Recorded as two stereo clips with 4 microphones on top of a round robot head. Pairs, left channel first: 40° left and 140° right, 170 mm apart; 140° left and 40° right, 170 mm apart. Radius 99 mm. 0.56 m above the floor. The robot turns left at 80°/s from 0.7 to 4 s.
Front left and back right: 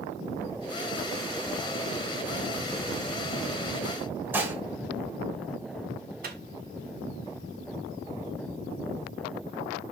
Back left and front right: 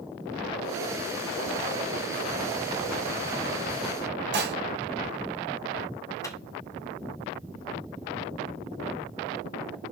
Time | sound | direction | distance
4.3 | dishes clattering | 60° right | 1.5 m
6.2 | a microwave | 150° right | 1.6 m